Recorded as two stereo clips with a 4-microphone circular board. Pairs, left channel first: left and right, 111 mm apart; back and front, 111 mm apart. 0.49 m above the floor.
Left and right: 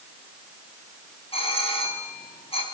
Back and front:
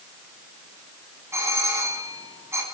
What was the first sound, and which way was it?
A doorbell, 65° left.